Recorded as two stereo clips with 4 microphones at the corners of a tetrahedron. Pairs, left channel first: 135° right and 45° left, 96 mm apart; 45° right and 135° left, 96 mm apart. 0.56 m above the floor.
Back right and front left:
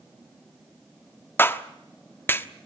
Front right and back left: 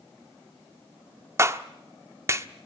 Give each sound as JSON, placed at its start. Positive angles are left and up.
{"t": 1.4, "sound": "a clap", "azimuth_deg": 170, "distance_m": 1.1}